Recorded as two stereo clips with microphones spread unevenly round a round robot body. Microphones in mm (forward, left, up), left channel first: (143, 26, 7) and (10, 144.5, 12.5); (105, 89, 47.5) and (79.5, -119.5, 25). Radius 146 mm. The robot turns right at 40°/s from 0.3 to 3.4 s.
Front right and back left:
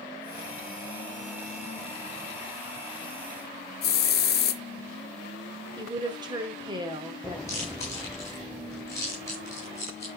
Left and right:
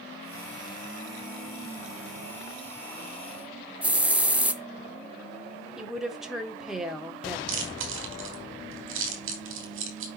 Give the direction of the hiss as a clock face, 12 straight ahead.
12 o'clock.